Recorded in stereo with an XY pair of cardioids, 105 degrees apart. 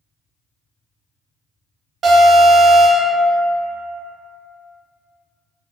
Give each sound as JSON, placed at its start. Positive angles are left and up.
{"t": 2.0, "sound": "an alarm", "azimuth_deg": -60, "distance_m": 1.0}